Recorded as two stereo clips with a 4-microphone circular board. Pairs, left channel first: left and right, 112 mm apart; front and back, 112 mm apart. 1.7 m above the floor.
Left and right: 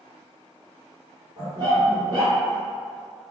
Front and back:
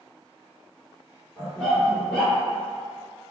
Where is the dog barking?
80° right, 1.7 m.